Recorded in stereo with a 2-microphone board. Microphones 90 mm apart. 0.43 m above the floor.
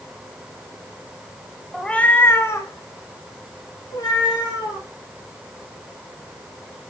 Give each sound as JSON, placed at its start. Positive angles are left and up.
{"t": 1.7, "sound": "a cat meowing", "side_deg": 5, "distance_m": 0.7}